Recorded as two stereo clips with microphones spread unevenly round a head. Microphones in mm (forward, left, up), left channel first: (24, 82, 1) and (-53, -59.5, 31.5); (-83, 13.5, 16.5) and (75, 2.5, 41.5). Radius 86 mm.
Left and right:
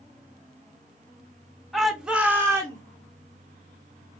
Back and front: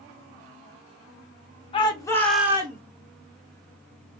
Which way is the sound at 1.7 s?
140° left.